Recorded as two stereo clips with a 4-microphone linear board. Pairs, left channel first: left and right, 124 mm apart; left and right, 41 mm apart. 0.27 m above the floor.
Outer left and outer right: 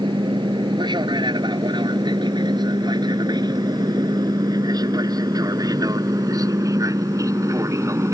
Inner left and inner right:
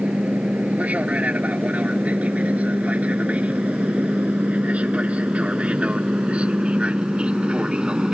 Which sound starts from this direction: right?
An aircraft, at 0.0 s.